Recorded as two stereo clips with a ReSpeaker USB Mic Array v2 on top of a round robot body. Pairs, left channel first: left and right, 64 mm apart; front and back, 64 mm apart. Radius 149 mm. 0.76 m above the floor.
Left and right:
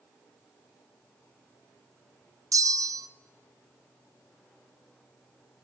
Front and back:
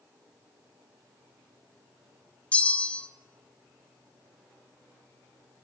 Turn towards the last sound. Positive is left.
turn(degrees=-65)